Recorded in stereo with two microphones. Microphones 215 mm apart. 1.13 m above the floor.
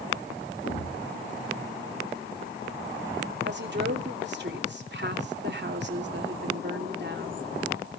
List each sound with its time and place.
0.6 s a thud: 75° left (ahead or behind), 4 m
3.5 s a woman speaking: 55° right (ahead or behind), 2.5 m